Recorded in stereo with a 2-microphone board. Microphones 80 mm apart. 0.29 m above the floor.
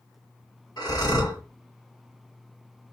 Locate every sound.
0.8 s breathing: 55° left (ahead or behind), 2 m